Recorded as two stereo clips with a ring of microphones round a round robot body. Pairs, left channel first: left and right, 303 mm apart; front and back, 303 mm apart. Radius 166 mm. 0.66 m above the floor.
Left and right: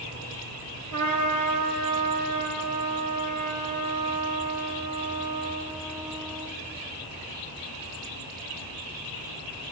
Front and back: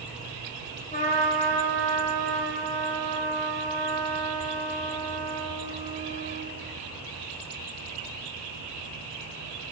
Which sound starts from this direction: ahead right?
A trumpet, at 0.9 s.